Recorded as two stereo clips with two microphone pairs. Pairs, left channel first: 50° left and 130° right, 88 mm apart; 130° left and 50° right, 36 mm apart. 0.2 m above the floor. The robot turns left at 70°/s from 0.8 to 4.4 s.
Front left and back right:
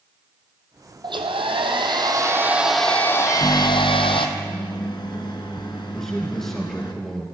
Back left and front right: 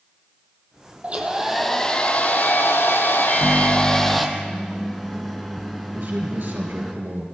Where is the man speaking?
35° right, 3.5 m.